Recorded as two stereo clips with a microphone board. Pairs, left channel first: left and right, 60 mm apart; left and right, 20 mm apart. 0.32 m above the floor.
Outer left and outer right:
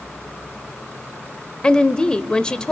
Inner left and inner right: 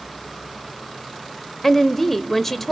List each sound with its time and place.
1.6 s a woman speaking: 15° left (ahead or behind), 0.8 m